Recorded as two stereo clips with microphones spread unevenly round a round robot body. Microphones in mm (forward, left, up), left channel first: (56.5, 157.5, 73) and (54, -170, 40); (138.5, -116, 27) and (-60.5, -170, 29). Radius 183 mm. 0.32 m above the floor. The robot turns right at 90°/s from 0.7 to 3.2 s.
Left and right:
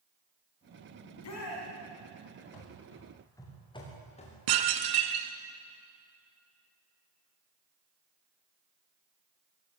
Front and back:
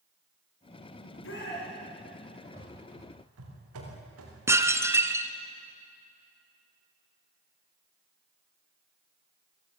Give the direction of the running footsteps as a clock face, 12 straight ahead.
8 o'clock.